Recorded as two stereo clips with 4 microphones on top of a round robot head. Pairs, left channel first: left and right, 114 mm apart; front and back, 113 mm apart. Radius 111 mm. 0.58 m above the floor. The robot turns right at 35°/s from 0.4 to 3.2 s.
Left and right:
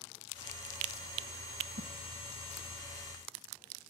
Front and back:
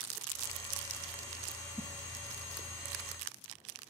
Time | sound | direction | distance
1.8 | a whoosh | 80° right | 0.8 m